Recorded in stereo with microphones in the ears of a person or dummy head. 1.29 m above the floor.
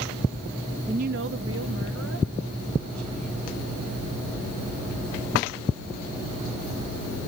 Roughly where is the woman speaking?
Right.